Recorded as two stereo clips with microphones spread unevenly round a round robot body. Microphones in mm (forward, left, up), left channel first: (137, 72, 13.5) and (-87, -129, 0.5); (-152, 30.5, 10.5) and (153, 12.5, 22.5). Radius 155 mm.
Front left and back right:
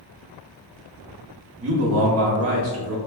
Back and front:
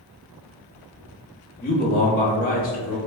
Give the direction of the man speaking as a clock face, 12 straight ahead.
4 o'clock.